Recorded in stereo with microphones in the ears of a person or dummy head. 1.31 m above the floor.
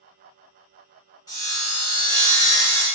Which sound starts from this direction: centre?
Sawing, at 1.3 s.